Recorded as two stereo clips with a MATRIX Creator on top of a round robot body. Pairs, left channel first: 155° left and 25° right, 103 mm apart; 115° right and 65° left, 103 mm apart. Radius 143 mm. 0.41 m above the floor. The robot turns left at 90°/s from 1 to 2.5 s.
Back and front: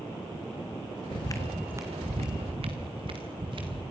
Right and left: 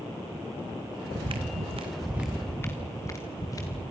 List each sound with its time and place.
1.1 s footsteps: 130° left, 1.8 m; by 3.8 s 60° right, 4.5 m